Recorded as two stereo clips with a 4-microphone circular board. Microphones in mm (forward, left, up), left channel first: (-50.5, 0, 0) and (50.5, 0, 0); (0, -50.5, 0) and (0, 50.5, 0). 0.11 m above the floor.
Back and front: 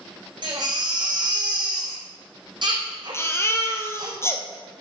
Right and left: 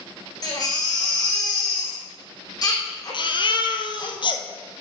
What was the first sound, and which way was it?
A baby crying, 40° right.